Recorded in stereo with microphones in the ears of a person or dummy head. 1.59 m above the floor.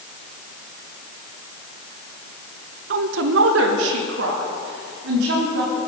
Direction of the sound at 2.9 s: 65° right (ahead or behind).